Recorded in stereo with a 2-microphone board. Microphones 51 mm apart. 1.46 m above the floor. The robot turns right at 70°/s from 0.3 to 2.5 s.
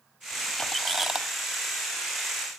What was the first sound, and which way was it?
A squeak, 150° left.